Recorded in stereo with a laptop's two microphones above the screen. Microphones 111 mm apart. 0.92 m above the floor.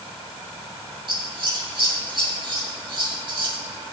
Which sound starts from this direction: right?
Scissors, at 1.1 s.